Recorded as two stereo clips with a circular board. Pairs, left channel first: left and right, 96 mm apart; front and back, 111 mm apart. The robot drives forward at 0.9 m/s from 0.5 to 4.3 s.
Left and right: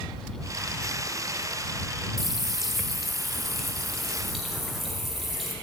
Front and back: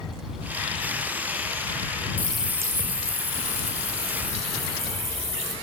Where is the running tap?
10° right, 0.5 m; by 5.5 s straight behind, 1.8 m.